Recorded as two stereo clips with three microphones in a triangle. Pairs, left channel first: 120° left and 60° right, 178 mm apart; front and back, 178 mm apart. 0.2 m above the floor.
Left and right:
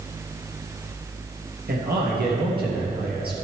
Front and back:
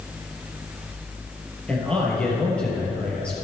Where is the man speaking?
85° right, 3.5 m.